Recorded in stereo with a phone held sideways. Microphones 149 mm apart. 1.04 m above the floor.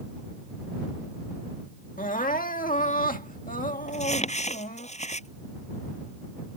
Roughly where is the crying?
Left.